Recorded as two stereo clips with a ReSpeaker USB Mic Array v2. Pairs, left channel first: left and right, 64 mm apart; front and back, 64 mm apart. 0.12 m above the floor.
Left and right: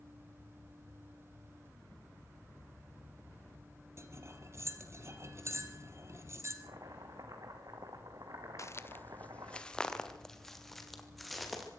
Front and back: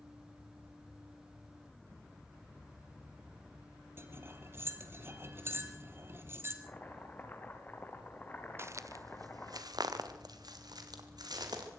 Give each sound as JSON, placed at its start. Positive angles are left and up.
{"t": 4.0, "sound": "cutlery clinking", "azimuth_deg": -130, "distance_m": 2.0}
{"t": 6.6, "sound": "chopping", "azimuth_deg": -60, "distance_m": 3.5}
{"t": 8.6, "sound": "footsteps", "azimuth_deg": 130, "distance_m": 1.0}